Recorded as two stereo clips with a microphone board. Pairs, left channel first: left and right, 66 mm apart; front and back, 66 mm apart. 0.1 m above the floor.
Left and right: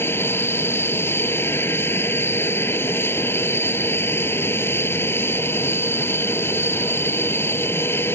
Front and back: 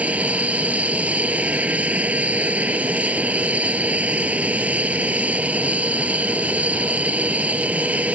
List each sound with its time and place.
0.0 s an aircraft: 120° left